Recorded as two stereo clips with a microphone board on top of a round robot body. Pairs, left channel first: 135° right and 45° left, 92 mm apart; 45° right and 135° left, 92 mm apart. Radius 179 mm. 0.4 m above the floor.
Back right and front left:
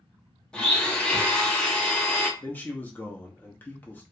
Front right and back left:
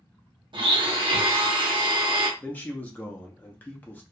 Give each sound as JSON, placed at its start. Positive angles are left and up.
{"t": 0.5, "sound": "a blender", "azimuth_deg": 150, "distance_m": 1.0}
{"t": 2.4, "sound": "a man speaking", "azimuth_deg": -95, "distance_m": 0.8}